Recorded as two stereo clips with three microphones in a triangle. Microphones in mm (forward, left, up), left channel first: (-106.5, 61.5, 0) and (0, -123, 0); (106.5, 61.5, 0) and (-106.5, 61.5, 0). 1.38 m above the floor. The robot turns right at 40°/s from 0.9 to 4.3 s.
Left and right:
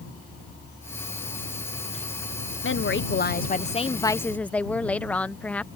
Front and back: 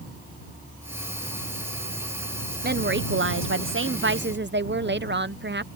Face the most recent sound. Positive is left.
turn(degrees=-155)